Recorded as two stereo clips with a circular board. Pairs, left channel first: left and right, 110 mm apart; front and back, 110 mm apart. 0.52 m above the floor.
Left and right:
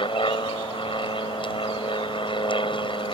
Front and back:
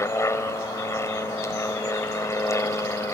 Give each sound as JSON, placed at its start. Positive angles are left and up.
{"t": 0.0, "sound": "an aircraft", "azimuth_deg": 60}